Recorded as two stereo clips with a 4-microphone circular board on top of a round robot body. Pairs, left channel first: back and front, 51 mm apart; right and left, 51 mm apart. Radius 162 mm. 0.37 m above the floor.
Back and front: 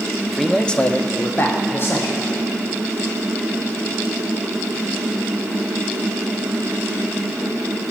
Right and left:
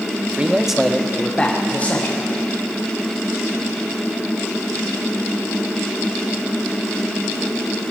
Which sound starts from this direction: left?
A man speaking, at 0.3 s.